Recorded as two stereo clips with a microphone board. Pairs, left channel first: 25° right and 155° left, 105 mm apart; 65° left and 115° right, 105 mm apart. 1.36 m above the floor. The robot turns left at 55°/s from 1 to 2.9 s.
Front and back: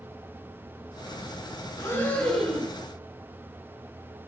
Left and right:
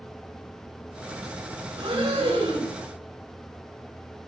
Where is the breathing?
75° right, 2 m; by 2.7 s 130° right, 2 m.